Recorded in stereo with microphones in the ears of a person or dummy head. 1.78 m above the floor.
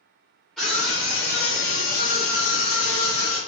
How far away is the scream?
About 0.8 m.